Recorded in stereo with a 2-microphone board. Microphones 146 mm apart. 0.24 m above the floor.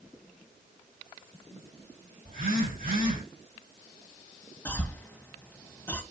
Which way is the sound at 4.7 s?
10° left (ahead or behind).